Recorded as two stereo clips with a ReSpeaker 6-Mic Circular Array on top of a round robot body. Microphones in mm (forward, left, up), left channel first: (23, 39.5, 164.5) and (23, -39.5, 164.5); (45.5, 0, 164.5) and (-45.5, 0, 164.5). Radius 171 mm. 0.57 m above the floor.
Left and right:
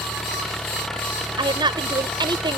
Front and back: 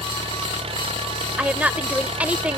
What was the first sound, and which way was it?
An engine running, 175° left.